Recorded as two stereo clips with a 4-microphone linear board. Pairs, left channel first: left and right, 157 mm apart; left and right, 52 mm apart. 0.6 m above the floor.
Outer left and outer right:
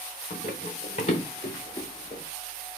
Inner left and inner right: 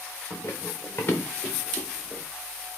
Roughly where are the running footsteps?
Left.